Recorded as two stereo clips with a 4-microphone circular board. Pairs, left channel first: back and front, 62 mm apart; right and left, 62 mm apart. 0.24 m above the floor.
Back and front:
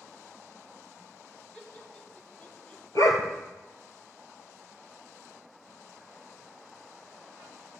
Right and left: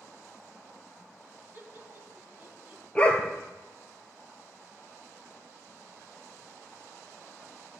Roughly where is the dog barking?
Behind.